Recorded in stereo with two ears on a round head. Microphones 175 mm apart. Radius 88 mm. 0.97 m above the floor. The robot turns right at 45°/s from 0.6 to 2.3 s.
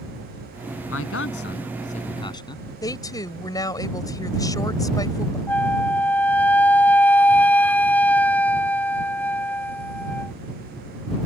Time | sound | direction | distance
0.9 | a man speaking | 95° left | ?
2.8 | a woman speaking | 20° left (ahead or behind) | ?
5.5 | a flute | 10° left (ahead or behind) | ?